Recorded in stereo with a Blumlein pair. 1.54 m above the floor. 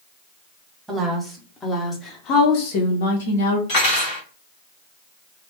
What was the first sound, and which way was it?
A woman speaking, 5° right.